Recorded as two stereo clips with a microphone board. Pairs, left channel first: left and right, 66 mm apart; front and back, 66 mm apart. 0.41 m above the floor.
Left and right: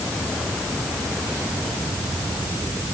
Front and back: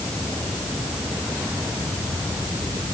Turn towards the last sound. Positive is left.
No sound to turn to.